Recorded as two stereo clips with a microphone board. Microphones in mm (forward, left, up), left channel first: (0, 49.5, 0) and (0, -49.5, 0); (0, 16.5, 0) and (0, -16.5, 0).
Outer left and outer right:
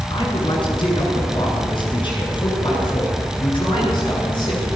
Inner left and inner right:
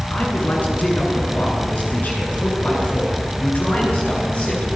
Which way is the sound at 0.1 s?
55° left (ahead or behind).